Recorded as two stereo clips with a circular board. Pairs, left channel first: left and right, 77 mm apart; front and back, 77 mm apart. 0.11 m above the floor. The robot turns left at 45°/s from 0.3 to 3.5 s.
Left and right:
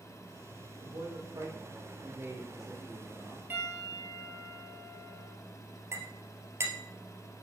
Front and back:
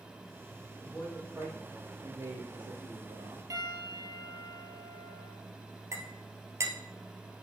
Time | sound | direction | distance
0.8 | a man speaking | 90° right | 4 m
3.5 | a piano | 145° right | 2.5 m
5.9 | a clink | 135° right | 1.9 m